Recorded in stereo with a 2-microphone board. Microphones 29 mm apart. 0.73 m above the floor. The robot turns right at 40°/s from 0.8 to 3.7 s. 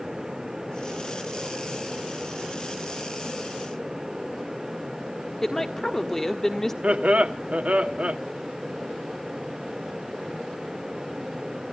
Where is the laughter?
55° right (ahead or behind), 1.7 m.